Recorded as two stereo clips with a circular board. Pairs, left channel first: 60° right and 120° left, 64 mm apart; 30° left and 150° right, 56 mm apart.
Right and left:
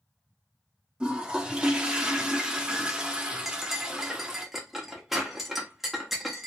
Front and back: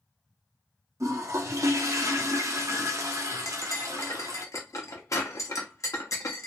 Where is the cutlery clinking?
35° left, 0.7 m.